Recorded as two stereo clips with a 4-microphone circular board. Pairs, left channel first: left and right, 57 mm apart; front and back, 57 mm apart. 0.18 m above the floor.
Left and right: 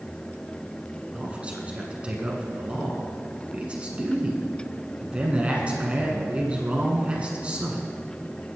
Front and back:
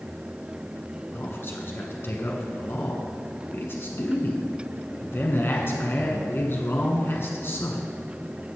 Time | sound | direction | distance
1.1 | a man speaking | 30° right | 1.6 m